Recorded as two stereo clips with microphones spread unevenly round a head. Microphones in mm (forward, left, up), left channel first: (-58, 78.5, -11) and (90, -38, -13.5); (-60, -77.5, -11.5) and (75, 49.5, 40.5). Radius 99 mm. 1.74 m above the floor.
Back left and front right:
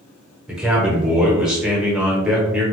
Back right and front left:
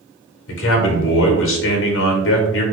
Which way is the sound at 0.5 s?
125° right.